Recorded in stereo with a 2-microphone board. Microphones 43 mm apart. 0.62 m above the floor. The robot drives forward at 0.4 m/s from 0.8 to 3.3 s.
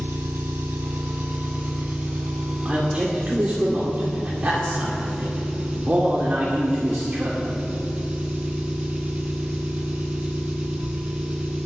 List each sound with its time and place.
0.0 s an engine running: 60° right (ahead or behind), 1.2 m; by 11.7 s 35° right (ahead or behind), 1.9 m
2.6 s a man speaking: 35° right (ahead or behind), 2 m; by 7.3 s 40° right (ahead or behind), 1.9 m